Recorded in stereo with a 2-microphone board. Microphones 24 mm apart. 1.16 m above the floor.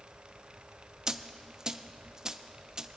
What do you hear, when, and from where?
1.1 s a dropped coin: 25° right (ahead or behind), 0.5 m